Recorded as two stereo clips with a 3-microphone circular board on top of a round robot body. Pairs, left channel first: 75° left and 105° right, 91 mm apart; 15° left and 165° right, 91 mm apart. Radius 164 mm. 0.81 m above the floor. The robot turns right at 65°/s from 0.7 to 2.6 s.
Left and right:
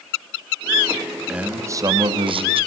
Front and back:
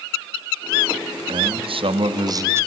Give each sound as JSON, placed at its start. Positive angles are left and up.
{"t": 1.3, "sound": "a man speaking", "azimuth_deg": 175, "distance_m": 2.5}